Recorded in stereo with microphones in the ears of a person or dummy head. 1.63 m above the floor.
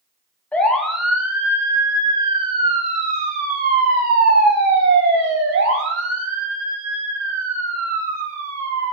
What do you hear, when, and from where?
0.5 s a siren: centre (ahead or behind), 3 m; by 8.9 s 85° right, 6 m